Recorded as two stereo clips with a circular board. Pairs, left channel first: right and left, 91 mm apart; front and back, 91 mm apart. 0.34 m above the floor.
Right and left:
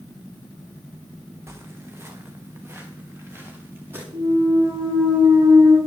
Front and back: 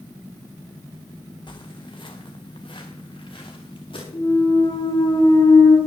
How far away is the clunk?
About 7 m.